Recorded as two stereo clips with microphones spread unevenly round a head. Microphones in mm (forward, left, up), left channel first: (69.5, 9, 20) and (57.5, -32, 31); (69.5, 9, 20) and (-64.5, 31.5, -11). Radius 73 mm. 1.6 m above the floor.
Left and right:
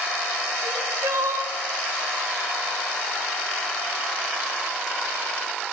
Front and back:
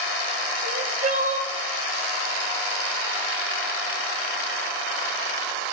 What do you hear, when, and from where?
0.6 s crying: 150° right, 1.0 m